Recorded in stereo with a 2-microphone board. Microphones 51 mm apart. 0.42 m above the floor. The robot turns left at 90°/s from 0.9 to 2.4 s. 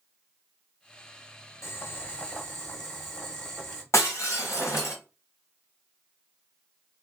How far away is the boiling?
About 1.1 m.